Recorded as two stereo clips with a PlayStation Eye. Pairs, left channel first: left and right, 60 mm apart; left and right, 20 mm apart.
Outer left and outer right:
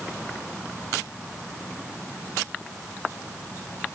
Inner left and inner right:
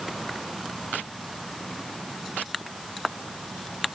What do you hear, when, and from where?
Only background noise.